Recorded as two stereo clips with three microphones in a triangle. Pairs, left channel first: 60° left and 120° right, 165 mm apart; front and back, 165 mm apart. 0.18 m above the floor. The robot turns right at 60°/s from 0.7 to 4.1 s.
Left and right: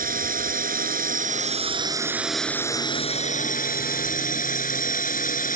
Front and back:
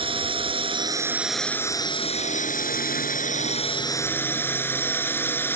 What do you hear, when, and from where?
0.0 s a drone: 130° right; by 5.6 s 75° left